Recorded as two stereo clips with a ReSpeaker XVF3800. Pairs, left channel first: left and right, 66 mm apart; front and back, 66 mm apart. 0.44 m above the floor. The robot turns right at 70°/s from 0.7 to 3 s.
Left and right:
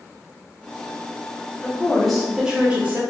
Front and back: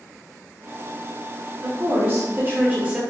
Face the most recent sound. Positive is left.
turn(degrees=-120)